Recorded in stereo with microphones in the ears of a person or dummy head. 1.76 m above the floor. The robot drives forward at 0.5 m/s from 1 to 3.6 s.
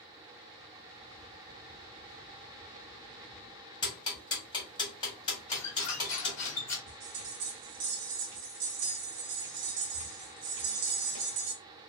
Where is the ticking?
25° left (ahead or behind), 1.5 m.